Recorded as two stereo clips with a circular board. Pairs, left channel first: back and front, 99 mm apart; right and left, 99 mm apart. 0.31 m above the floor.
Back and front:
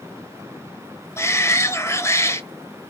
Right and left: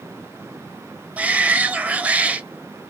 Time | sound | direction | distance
1.2 | a shout | 150° left | 1.0 m